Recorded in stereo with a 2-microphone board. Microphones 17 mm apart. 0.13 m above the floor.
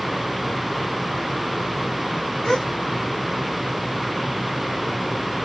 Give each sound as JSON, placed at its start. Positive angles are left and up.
{"t": 2.4, "sound": "a gasp", "side_deg": 40, "distance_m": 2.0}